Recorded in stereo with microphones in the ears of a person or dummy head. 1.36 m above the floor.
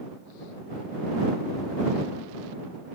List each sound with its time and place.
Only background noise.